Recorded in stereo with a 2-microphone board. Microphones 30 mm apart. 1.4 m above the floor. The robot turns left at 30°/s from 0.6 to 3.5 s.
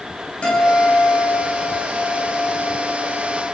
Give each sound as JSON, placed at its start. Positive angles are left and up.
{"t": 0.4, "sound": "a guitar", "azimuth_deg": 145, "distance_m": 4.0}